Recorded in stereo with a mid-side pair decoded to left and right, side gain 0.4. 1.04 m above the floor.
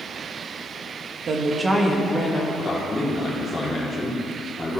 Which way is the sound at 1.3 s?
60° right.